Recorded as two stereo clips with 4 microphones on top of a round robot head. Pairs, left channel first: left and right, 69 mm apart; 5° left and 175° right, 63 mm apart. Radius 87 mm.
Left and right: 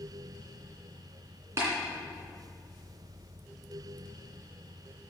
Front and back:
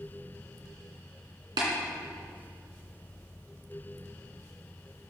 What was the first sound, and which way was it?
Tapping, 150° right.